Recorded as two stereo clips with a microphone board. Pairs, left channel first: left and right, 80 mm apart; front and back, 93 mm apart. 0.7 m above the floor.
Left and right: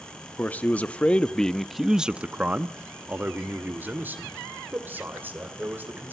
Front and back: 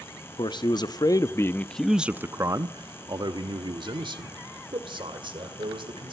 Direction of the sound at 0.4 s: 25° left.